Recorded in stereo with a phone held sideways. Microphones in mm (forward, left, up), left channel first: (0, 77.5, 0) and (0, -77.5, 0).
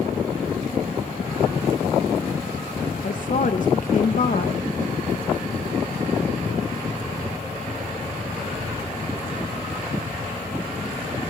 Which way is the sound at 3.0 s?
55° left (ahead or behind).